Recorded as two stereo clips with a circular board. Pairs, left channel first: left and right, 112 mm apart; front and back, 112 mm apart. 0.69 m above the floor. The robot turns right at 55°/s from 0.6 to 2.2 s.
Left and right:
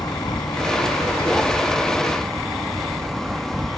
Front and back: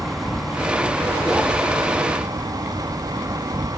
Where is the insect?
90° left; by 3.8 s straight behind.